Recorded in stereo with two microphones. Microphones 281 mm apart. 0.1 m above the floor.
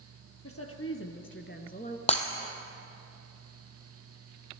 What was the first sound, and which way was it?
A woman speaking, 60° left (ahead or behind).